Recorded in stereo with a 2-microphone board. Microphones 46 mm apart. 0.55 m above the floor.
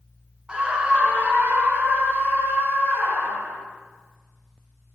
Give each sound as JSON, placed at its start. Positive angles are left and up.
{"t": 0.5, "sound": "a scream", "side_deg": -20, "distance_m": 1.2}